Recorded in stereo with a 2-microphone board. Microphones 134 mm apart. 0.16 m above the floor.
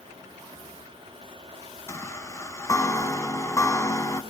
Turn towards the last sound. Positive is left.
turn(degrees=20)  # may be behind; listen again after turning